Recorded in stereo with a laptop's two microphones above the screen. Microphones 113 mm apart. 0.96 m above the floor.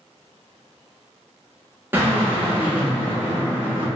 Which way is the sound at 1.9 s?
15° right (ahead or behind).